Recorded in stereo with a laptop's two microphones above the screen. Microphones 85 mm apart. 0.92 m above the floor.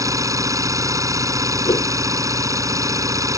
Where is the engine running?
40° right (ahead or behind).